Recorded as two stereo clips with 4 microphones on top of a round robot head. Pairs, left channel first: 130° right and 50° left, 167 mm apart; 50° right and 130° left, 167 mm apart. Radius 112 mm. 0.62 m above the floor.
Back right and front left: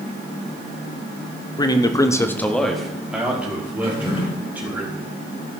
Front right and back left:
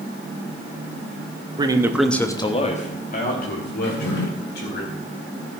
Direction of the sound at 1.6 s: 175° left.